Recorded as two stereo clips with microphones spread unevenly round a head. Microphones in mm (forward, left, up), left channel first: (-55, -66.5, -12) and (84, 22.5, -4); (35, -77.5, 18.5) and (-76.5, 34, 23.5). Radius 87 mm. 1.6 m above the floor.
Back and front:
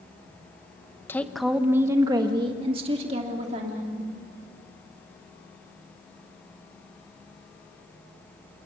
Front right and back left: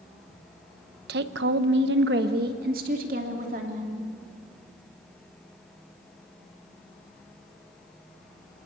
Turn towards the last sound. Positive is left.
turn(degrees=85)